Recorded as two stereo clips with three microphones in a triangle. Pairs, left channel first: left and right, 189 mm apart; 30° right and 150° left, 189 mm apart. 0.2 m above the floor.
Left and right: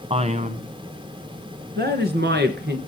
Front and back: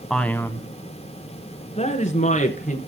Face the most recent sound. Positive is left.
turn(degrees=-70)